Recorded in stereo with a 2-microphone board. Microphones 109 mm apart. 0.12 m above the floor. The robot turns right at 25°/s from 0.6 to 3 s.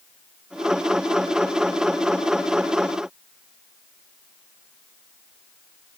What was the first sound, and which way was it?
Only background noise.